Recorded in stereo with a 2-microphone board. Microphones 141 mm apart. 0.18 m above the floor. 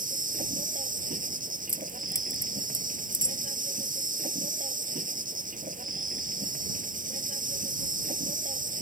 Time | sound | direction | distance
0.0 | an insect | 75° right (ahead or behind) | ?
1.7 | keys jangling | 20° left (ahead or behind) | ?